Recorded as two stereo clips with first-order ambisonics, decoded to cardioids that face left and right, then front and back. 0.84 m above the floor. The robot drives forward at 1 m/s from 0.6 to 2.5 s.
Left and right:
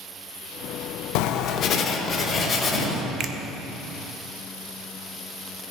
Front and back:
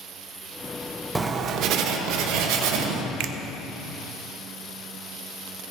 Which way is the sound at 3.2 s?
150° right.